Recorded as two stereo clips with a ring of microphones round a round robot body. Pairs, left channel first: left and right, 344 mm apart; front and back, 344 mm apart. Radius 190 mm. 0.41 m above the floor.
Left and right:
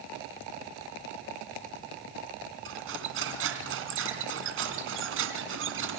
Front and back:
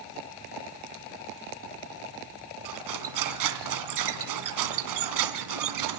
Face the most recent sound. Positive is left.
turn(degrees=-150)